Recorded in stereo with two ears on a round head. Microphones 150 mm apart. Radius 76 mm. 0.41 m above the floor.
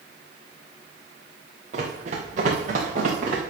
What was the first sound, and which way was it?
Running footsteps, 40° right (ahead or behind).